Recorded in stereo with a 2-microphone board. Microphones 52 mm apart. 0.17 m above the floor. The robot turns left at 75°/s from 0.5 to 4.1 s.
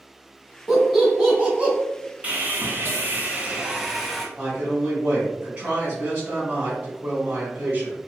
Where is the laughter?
5° right (ahead or behind), 1.0 m; by 1.7 s 20° right (ahead or behind), 1.0 m.